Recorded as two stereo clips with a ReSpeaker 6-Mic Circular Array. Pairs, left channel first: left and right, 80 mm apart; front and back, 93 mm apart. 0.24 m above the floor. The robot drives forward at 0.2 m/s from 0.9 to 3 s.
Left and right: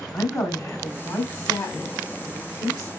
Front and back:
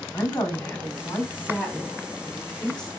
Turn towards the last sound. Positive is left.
turn(degrees=85)